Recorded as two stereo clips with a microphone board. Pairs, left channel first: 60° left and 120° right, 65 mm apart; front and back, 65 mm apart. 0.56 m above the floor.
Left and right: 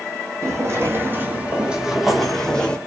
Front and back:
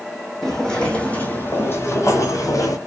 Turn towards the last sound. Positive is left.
turn(degrees=-10)